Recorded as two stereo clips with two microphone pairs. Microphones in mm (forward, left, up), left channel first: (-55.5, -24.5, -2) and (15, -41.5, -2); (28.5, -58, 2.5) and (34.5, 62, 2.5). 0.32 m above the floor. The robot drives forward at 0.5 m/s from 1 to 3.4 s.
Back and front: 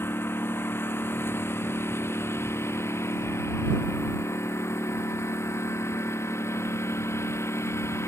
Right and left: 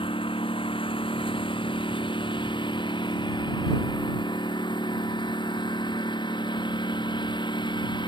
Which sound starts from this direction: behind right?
A lawn mower, at 0.0 s.